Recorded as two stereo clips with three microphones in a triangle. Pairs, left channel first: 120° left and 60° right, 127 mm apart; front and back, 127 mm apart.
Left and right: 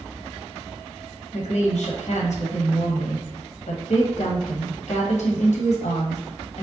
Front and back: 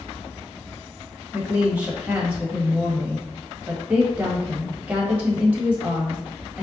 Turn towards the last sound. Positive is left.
turn(degrees=100)